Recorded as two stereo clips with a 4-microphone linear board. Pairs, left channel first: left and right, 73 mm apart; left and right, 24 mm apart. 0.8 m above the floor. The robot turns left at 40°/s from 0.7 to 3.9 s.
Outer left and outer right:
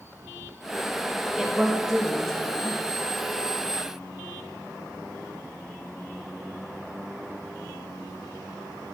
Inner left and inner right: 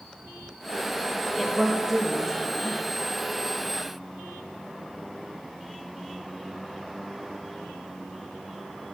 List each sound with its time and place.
1.4 s a woman speaking: 10° right (ahead or behind), 0.8 m; by 2.8 s 15° left (ahead or behind), 0.8 m